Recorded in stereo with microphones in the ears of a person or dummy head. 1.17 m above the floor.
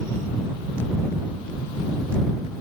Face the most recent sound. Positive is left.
No sound to turn to.